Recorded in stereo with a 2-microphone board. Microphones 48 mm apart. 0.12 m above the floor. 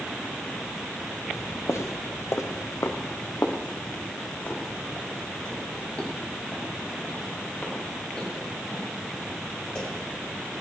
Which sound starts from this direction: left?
Footsteps, at 1.3 s.